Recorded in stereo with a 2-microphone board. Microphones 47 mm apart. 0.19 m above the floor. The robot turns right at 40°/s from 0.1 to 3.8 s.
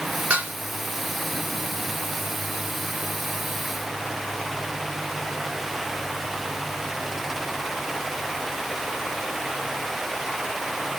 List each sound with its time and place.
0.3 s dishes clattering: 35° right (ahead or behind), 1.2 m; by 0.5 s 40° right (ahead or behind), 1.2 m